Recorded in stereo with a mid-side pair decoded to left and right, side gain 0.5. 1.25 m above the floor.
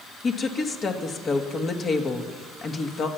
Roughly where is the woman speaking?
Ahead left.